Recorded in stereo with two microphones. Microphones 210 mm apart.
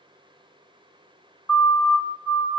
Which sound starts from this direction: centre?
A siren, at 1.5 s.